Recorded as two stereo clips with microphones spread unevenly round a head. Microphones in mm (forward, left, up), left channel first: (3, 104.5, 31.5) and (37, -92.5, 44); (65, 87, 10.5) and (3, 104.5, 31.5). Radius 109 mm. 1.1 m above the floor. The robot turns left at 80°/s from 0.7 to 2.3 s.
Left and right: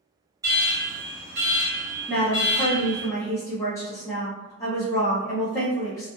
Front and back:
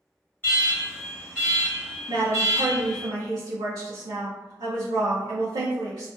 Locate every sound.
0.4 s an alarm: 10° right, 1.6 m; by 3.1 s 140° right, 1.6 m
2.1 s a woman speaking: 170° right, 0.6 m; by 6.1 s 170° left, 0.6 m